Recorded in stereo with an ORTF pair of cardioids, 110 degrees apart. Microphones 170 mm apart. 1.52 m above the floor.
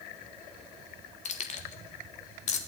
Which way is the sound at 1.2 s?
45° left.